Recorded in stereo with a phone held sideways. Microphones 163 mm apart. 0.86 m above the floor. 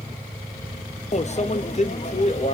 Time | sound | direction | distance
1.1 | a microwave | 45° left (ahead or behind) | 0.6 m